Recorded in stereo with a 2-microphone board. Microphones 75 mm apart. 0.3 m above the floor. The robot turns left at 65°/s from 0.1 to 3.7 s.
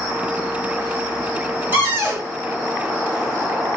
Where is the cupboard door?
30° right (ahead or behind), 1.3 m; by 2.3 s 25° right (ahead or behind), 1.3 m.